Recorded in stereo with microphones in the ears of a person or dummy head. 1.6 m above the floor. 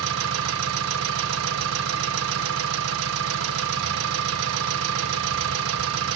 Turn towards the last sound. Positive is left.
turn(degrees=-80)